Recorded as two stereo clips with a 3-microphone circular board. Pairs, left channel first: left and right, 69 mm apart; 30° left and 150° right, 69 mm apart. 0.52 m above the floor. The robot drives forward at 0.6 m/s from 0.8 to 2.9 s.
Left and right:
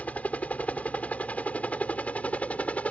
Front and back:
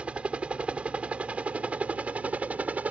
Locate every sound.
0.0 s a helicopter: 150° left